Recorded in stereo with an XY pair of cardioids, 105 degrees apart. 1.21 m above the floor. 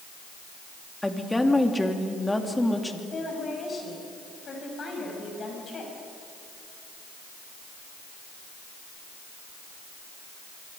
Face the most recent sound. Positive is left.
turn(degrees=40)